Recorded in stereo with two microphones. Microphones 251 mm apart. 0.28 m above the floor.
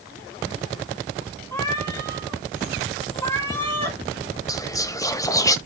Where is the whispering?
15° left (ahead or behind), 1.1 m.